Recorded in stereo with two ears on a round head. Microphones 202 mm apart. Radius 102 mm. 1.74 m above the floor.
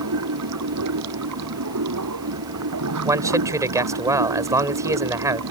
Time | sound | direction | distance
0.0 | running water | 85° right | ?
3.0 | a man speaking | 15° right (ahead or behind) | ?